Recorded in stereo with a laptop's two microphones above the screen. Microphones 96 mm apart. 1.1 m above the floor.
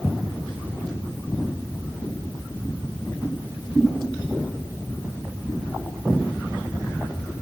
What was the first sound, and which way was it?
Only background noise.